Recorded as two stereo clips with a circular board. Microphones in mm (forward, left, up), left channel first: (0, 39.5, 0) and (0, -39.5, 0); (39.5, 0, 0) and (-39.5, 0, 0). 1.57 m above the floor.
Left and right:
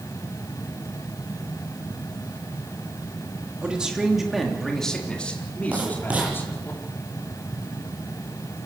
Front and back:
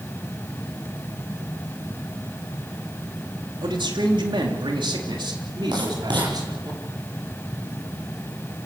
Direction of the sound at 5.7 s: 165° right.